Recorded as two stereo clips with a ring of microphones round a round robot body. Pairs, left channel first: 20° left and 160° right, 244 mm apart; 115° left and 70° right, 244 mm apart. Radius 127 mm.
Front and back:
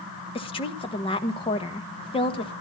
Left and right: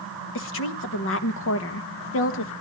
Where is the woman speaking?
90° left, 1.4 m.